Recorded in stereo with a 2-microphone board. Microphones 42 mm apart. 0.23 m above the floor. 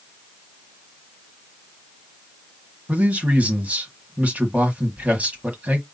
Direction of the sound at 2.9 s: 35° right (ahead or behind).